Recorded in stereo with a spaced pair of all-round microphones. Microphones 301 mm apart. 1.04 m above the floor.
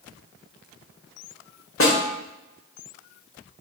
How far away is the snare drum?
About 0.7 m.